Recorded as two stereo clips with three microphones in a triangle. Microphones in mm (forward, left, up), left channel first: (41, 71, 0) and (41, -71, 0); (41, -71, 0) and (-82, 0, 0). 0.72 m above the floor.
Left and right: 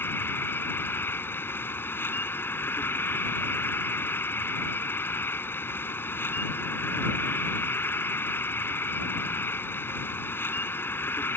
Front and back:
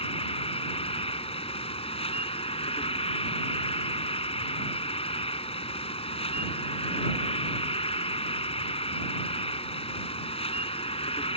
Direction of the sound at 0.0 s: 15° left.